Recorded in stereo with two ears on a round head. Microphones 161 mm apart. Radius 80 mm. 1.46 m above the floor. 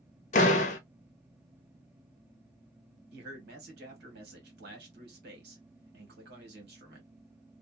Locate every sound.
0.3 s a door slam: 40° left (ahead or behind), 0.8 m
3.1 s a man speaking: 60° right (ahead or behind), 1.7 m